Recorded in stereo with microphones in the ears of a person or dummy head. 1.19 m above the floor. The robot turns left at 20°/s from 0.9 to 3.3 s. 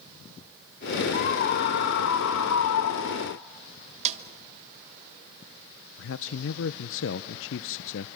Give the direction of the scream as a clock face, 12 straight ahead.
8 o'clock.